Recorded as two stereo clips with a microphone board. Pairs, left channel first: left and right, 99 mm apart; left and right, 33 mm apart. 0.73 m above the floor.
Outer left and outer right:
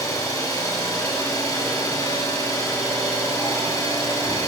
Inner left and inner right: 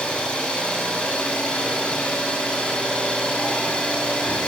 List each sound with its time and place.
0.0 s an engine running: 40° left (ahead or behind), 6.5 m